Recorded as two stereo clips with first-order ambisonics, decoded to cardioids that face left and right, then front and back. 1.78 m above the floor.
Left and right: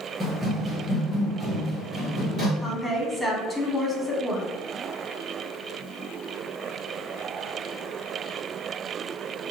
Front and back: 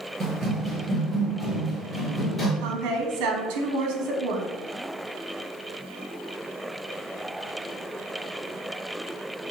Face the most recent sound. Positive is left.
turn(degrees=-170)